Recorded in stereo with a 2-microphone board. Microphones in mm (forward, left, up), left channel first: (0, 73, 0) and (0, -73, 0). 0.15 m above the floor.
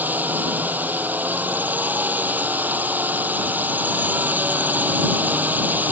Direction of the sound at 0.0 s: 10° right (ahead or behind).